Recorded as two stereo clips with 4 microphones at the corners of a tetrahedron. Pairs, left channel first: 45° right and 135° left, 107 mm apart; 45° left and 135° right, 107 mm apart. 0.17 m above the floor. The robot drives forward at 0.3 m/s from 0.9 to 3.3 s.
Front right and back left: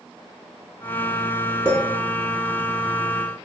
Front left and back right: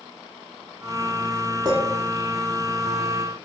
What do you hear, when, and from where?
1.6 s a clink: 170° right, 0.8 m